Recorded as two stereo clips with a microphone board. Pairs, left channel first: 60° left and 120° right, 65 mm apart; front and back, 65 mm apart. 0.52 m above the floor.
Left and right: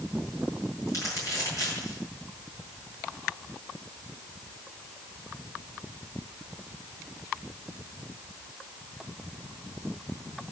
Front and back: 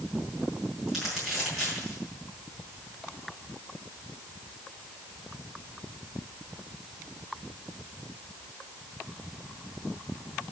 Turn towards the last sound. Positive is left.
turn(degrees=100)